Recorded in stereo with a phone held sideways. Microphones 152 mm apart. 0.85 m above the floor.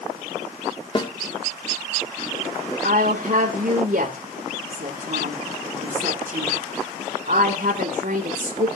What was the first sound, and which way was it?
A snare drum, 30° left (ahead or behind).